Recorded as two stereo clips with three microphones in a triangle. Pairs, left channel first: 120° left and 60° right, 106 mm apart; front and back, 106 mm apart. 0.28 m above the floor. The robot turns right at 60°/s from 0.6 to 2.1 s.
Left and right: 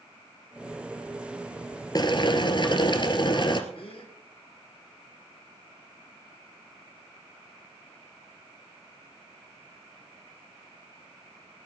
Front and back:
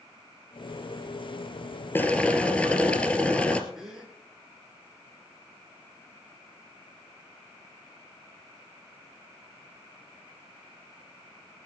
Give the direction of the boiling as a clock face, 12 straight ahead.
10 o'clock.